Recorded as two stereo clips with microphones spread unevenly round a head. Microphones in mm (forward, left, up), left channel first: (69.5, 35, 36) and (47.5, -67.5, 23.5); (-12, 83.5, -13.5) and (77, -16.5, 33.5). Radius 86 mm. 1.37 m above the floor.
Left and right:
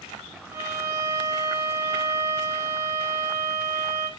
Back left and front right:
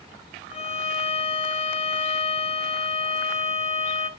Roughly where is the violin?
Behind.